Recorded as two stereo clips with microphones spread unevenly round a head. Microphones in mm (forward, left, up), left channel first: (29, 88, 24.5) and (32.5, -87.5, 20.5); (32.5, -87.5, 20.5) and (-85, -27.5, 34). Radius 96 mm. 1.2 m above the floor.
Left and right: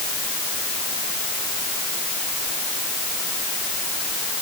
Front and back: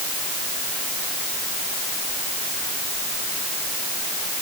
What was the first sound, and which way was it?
Only background noise.